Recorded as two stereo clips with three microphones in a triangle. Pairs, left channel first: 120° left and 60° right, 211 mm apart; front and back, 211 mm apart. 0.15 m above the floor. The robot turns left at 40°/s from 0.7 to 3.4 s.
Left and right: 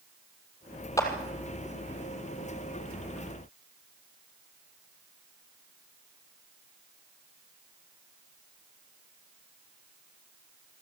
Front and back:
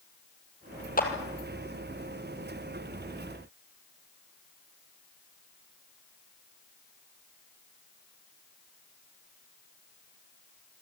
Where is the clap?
45° left, 4 m; by 1.1 s 40° left, 4 m.